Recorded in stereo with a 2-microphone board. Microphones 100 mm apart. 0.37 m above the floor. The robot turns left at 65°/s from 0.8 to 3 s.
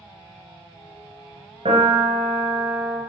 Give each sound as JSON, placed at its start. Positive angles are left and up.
{"t": 1.6, "sound": "a piano", "azimuth_deg": -80, "distance_m": 3.0}